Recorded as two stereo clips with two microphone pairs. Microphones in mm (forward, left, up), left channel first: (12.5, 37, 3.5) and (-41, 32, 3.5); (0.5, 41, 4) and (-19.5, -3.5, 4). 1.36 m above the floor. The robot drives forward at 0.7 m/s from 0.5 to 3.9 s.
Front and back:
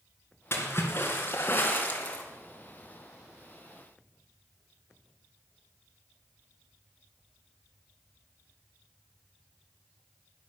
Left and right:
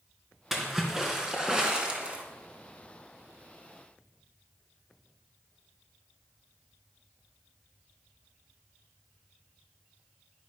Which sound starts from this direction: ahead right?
A splash, at 0.5 s.